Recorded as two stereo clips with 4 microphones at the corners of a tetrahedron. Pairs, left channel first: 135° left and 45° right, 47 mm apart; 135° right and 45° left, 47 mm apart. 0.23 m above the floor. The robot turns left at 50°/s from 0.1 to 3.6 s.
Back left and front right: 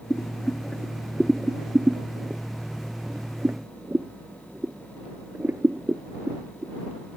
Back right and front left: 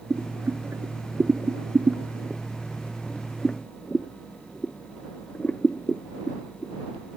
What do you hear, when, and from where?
0.1 s boiling: 95° left; by 6.7 s 80° right